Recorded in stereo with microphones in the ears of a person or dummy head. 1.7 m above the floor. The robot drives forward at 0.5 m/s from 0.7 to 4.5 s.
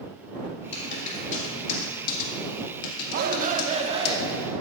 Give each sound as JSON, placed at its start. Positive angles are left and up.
{"t": 0.7, "sound": "typing on a keyboard", "side_deg": 40, "distance_m": 2.5}
{"t": 3.1, "sound": "a shout", "side_deg": -55, "distance_m": 0.8}